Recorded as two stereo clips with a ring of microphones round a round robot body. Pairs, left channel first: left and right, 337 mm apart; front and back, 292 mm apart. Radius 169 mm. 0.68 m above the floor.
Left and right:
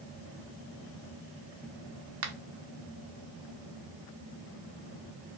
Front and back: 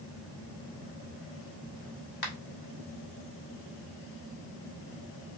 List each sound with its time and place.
2.2 s a finger snap: 50° right, 1.0 m